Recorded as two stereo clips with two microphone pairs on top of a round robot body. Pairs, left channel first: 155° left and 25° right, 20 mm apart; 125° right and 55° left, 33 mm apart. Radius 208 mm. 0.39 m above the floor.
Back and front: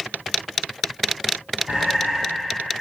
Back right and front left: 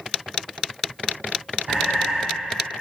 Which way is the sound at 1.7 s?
5° left.